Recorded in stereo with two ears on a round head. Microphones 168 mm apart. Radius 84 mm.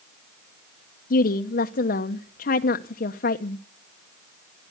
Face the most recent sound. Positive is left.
turn(degrees=50)  # may be behind; listen again after turning